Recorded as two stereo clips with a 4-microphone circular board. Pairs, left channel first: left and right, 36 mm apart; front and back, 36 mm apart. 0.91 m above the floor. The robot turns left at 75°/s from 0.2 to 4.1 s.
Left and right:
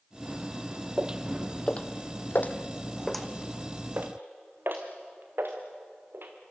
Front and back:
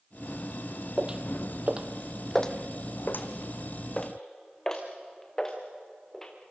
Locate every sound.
1.0 s footsteps: 120° right, 1.0 m; by 6.3 s 75° right, 4 m